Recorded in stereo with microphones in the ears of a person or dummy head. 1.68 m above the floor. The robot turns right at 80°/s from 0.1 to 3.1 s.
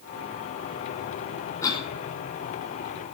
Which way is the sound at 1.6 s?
20° left (ahead or behind).